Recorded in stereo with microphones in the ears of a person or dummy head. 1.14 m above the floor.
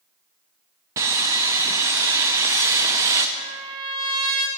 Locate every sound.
1.0 s sawing: 15° right (ahead or behind), 0.5 m
3.4 s a trumpet: 25° right (ahead or behind), 0.9 m